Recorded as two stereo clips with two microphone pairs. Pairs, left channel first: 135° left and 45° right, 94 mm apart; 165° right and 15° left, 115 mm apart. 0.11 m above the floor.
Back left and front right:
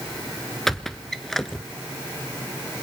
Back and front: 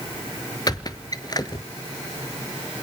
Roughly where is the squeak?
Behind right.